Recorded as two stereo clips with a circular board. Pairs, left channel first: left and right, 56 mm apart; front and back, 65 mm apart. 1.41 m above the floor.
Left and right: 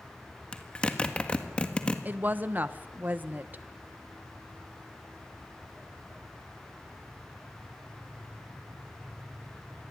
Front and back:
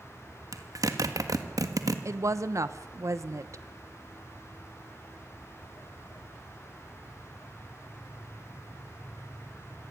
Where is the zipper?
160° left, 1.8 m.